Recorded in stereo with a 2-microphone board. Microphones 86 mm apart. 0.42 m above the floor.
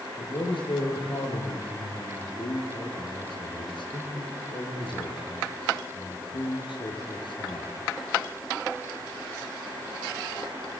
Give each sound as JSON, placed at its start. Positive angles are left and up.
{"t": 0.2, "sound": "a man speaking", "side_deg": 70, "distance_m": 6.5}